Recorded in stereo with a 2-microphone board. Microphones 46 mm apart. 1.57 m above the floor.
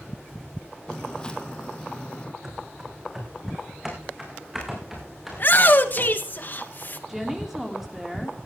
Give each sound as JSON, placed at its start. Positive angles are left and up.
{"t": 0.9, "sound": "footsteps", "side_deg": 15, "distance_m": 1.9}
{"t": 2.4, "sound": "running footsteps", "side_deg": -10, "distance_m": 4.0}
{"t": 5.3, "sound": "a shout", "side_deg": 45, "distance_m": 1.8}
{"t": 7.1, "sound": "a woman speaking", "side_deg": -5, "distance_m": 3.5}